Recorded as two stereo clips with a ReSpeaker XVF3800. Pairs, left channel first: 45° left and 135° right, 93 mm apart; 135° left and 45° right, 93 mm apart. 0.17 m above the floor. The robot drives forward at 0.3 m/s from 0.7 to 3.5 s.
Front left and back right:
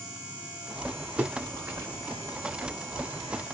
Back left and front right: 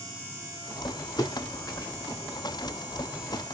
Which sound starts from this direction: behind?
A splash, at 1.2 s.